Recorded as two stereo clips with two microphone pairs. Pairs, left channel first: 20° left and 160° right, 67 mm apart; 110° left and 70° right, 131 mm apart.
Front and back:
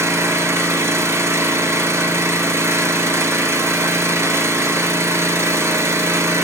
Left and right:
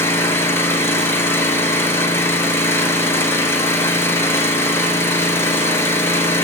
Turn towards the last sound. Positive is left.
turn(degrees=175)